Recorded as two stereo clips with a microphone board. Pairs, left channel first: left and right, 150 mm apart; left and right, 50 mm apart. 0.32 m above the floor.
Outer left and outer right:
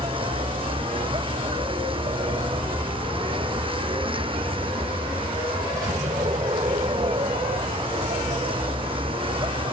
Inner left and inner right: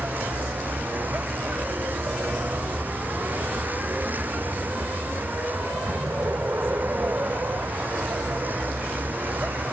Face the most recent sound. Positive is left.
turn(degrees=-35)  # may be behind; listen again after turning